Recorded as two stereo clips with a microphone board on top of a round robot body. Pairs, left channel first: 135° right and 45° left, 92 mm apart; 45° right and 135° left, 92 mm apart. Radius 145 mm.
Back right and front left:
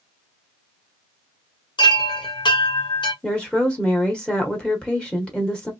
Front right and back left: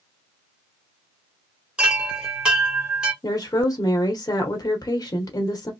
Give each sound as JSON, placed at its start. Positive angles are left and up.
{"t": 1.8, "sound": "a chime", "azimuth_deg": -145, "distance_m": 1.8}
{"t": 3.2, "sound": "a woman speaking", "azimuth_deg": -60, "distance_m": 1.1}